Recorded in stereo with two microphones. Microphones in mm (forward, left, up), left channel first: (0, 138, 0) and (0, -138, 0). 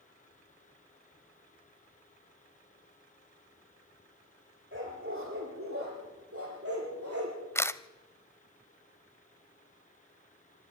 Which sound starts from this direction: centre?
A camera shutter, at 7.5 s.